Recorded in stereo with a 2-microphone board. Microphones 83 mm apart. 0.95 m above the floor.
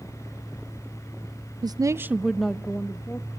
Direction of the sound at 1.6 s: 55° right (ahead or behind).